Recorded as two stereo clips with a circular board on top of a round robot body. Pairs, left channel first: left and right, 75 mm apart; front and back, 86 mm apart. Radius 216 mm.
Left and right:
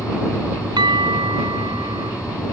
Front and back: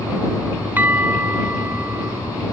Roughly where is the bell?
Right.